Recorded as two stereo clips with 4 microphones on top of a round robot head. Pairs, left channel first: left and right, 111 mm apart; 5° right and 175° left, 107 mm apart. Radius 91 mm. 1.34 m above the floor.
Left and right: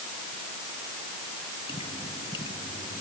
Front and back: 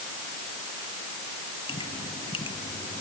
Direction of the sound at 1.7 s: 30° left.